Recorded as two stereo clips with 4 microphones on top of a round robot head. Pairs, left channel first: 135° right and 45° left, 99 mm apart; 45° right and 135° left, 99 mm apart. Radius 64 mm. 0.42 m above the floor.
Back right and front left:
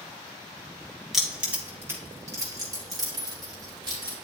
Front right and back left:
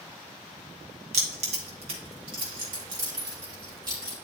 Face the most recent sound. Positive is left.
turn(degrees=85)